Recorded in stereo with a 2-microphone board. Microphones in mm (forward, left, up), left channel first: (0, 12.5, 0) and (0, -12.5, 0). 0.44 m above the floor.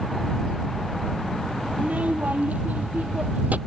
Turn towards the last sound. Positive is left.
turn(degrees=-75)  # may be behind; listen again after turning